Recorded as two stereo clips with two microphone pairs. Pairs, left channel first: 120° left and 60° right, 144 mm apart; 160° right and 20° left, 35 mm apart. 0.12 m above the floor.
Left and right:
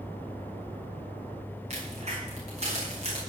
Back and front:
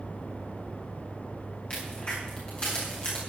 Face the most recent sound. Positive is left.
turn(degrees=-100)